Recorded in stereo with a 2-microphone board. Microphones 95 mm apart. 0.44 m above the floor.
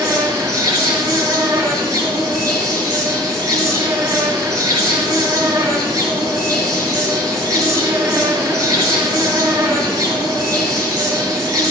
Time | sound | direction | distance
0.0 | an insect | 40° right (ahead or behind) | 2.5 m